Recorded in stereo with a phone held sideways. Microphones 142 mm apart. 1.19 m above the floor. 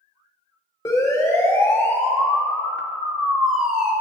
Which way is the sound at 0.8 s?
25° left (ahead or behind).